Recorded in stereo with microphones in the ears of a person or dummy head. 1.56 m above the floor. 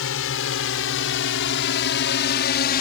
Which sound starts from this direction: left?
A drone, at 0.0 s.